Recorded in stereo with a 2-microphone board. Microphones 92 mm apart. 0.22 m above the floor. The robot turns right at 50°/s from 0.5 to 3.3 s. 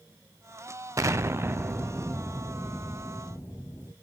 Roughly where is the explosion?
Right.